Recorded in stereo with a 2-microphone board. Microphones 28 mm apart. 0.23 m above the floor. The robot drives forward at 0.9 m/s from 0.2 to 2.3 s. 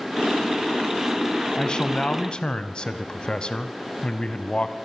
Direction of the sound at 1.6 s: 30° left (ahead or behind).